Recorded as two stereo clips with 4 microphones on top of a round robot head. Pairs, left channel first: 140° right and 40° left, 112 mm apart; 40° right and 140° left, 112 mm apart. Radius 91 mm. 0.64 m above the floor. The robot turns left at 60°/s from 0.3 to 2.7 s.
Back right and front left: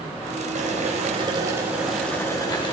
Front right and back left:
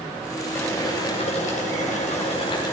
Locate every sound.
0.6 s boiling: 30° left, 3 m; by 2.7 s 95° right, 3 m